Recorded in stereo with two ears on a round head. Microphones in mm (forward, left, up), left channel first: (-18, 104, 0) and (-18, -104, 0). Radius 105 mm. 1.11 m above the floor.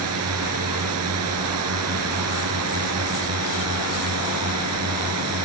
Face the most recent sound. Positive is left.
turn(degrees=-70)  # may be behind; listen again after turning